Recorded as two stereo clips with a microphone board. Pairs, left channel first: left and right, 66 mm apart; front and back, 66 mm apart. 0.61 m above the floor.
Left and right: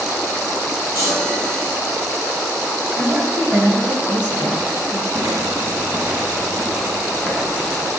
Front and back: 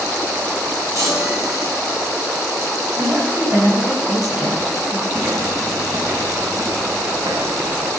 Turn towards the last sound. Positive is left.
turn(degrees=170)